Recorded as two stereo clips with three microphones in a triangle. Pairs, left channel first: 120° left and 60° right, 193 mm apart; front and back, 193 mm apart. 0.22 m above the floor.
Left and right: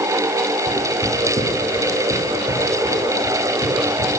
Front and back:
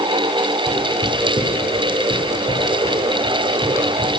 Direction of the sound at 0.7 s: 130° right.